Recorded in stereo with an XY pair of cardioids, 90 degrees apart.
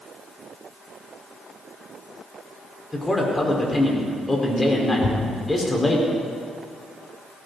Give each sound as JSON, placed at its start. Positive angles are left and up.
{"t": 2.9, "sound": "a man speaking", "azimuth_deg": 20, "distance_m": 5.0}
{"t": 5.0, "sound": "a thud", "azimuth_deg": 45, "distance_m": 3.0}